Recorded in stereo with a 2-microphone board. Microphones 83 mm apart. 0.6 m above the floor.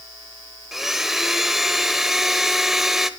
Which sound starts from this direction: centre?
A blender, at 0.7 s.